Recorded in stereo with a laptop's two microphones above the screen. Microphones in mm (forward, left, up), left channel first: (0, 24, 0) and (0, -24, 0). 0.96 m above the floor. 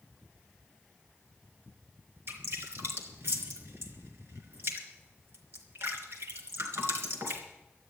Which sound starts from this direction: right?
Dripping, at 2.3 s.